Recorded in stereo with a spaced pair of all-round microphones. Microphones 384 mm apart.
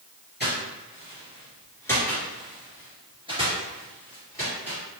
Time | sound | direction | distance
0.4 | footsteps | 25° left (ahead or behind) | 1.9 m